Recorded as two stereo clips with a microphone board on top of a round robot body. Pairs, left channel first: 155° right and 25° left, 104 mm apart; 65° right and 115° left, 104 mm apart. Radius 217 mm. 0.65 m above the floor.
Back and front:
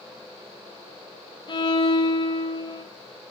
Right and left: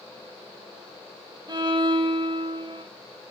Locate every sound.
1.5 s a violin: 160° left, 1.1 m